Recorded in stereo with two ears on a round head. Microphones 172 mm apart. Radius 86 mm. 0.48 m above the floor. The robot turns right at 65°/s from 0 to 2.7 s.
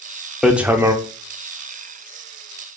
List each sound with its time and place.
0.4 s hammering: straight behind, 0.5 m; by 0.9 s 145° right, 0.5 m